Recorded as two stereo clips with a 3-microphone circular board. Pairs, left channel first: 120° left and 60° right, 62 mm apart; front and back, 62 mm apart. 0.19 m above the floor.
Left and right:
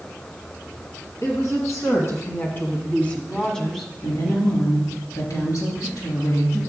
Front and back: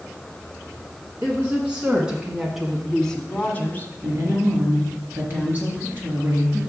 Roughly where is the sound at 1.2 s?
Behind left.